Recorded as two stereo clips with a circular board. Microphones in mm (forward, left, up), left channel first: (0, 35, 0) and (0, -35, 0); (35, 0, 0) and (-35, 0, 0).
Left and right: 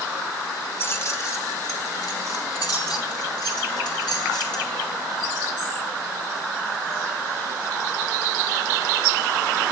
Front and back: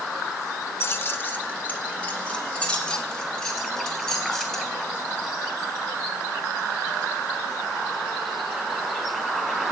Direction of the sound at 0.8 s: 45° left.